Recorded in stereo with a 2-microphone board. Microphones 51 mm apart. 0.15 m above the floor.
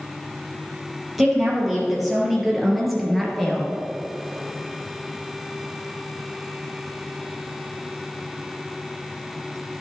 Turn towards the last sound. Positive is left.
turn(degrees=0)  # may be behind; listen again after turning